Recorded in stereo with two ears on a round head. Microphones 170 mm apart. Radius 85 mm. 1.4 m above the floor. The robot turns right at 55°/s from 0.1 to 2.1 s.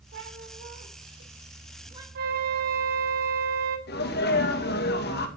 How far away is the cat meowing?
About 3.5 m.